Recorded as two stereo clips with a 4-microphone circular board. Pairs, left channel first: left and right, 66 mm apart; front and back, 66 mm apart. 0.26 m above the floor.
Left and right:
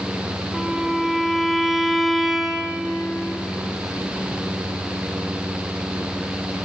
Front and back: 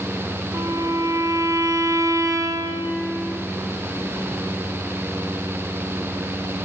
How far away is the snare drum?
I don't hear a snare drum.